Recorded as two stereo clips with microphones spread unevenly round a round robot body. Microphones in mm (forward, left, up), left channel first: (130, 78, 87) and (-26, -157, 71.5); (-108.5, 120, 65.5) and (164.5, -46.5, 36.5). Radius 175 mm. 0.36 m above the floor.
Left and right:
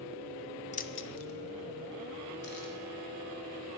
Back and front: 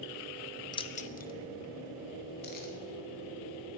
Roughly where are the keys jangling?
Left.